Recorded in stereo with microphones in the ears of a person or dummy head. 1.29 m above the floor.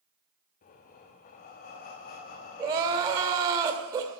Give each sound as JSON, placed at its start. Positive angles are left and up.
{"t": 0.6, "sound": "breathing", "side_deg": 35, "distance_m": 1.1}
{"t": 2.6, "sound": "crying", "side_deg": -25, "distance_m": 1.8}